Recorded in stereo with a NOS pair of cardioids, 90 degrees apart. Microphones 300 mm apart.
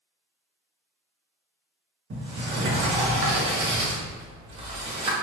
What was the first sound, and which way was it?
A sliding door, 40° right.